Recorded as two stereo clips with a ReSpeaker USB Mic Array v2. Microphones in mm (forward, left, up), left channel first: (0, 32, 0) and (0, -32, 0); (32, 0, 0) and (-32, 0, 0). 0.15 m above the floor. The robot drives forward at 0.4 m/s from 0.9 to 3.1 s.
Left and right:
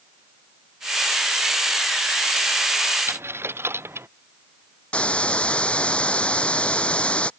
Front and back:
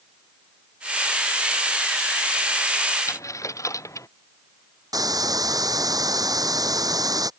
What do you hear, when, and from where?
3.1 s a dropped coin: 40° right
4.9 s a hiss: 165° left